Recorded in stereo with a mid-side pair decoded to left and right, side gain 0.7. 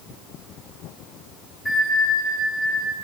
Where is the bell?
Straight ahead, 4 m.